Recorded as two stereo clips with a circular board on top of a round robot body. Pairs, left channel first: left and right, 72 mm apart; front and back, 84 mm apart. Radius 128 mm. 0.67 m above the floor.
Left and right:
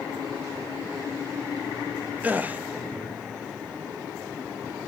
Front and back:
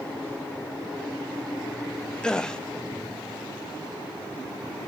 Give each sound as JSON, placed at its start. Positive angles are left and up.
{"t": 2.2, "sound": "a gasp", "azimuth_deg": -65, "distance_m": 1.0}